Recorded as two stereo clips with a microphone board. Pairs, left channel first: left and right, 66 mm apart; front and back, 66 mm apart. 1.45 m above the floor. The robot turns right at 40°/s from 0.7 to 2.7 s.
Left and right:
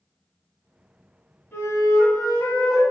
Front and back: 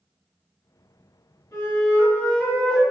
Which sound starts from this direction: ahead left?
A flute, at 1.5 s.